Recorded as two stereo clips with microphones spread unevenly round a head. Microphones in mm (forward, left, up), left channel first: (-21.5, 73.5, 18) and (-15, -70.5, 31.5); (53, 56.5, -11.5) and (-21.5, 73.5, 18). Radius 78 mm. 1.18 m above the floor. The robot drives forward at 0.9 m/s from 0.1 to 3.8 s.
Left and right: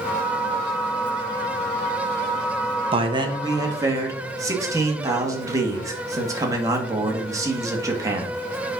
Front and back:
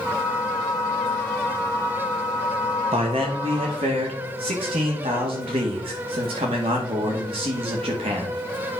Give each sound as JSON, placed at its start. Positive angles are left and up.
{"t": 2.9, "sound": "a man speaking", "azimuth_deg": -140, "distance_m": 1.2}